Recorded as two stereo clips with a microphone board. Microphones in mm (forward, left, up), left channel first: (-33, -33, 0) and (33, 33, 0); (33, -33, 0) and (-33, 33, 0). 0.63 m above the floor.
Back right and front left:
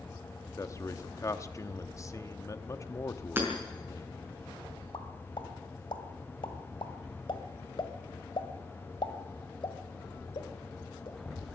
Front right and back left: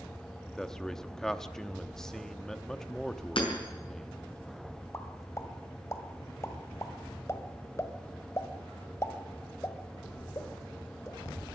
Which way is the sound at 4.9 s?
105° right.